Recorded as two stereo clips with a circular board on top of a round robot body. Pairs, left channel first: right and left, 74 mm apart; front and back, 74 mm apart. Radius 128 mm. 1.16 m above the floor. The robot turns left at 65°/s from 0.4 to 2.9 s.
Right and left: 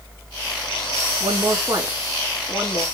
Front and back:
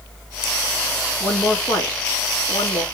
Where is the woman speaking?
70° left, 3 m; by 2.9 s 40° right, 3 m.